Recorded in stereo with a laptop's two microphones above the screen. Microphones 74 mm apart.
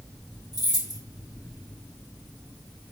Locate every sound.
0.5 s keys jangling: 80° right, 2.5 m